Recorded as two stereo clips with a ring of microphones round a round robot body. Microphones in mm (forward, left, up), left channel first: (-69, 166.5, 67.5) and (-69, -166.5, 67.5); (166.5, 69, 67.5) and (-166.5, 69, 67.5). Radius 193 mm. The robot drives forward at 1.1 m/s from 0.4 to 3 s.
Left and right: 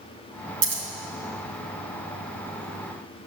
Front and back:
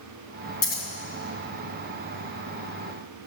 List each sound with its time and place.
0.6 s scissors: 65° right, 2.5 m; by 0.8 s 70° right, 2.5 m